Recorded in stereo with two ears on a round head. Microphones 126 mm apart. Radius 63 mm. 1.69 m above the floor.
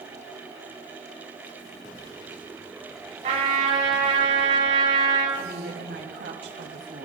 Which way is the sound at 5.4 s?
85° right.